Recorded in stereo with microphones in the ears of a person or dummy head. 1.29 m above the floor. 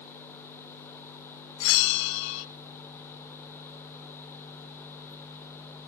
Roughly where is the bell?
Left.